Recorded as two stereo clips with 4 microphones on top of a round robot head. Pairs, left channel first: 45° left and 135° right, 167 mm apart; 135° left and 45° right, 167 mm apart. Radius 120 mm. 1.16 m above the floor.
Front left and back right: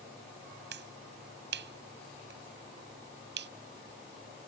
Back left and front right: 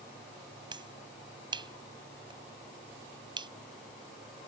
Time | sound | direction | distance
0.7 | a finger snap | 110° right | ?